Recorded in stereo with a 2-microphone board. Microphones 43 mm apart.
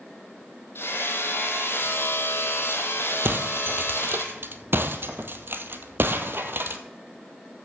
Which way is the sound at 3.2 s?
55° right (ahead or behind).